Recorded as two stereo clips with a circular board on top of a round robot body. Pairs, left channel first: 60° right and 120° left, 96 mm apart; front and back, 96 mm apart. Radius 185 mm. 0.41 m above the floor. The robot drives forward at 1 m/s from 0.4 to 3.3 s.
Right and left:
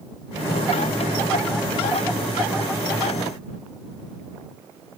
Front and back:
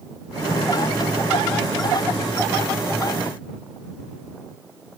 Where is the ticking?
No ticking in this recording.